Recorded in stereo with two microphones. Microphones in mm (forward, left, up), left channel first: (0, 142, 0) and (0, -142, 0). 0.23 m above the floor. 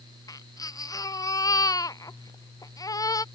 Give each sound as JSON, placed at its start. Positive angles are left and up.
{"t": 0.3, "sound": "a baby crying", "side_deg": 10}